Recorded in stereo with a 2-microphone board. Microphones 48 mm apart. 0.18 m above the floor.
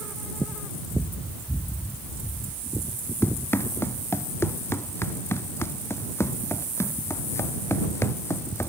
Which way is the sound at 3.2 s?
60° left (ahead or behind).